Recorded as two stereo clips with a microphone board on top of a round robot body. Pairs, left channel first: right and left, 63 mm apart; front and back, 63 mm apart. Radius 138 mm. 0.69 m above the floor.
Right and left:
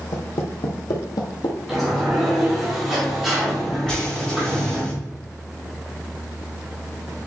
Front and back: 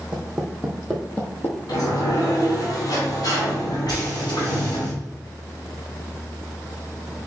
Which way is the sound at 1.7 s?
Straight ahead.